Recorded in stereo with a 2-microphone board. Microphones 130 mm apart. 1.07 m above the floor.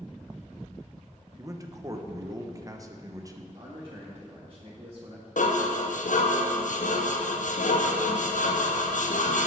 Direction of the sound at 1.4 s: 25° right (ahead or behind).